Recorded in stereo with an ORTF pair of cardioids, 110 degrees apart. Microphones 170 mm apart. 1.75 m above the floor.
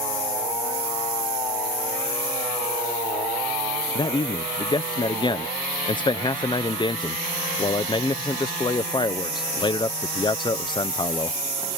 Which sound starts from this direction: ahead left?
A man speaking, at 4.0 s.